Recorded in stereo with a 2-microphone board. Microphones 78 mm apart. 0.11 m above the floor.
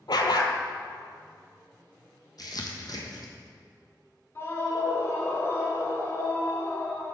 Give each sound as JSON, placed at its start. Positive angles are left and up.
{"t": 0.1, "sound": "a dog barking", "side_deg": 70, "distance_m": 0.6}
{"t": 2.4, "sound": "crumpling", "side_deg": 60, "distance_m": 1.1}
{"t": 4.3, "sound": "a scream", "side_deg": 35, "distance_m": 1.3}